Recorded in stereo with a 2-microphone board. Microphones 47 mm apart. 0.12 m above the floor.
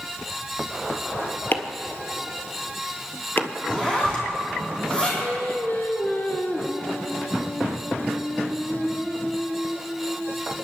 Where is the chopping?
50° left (ahead or behind), 1.2 m.